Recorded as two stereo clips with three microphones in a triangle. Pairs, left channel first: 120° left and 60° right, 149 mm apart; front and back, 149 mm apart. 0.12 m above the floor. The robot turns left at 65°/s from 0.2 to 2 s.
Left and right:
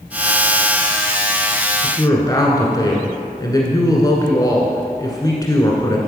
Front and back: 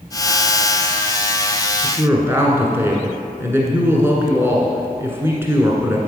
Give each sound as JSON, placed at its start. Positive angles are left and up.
{"t": 1.8, "sound": "a woman speaking", "azimuth_deg": 140, "distance_m": 1.4}